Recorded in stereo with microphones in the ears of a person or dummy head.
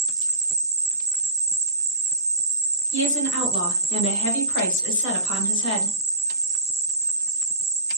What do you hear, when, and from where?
0.0 s an insect: 50° right (ahead or behind), 0.8 m
2.9 s a woman speaking: 60° left (ahead or behind), 0.8 m